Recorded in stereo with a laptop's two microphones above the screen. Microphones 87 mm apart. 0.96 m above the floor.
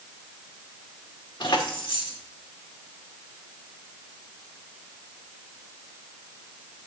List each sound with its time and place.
1.4 s keys jangling: 65° left (ahead or behind), 1.6 m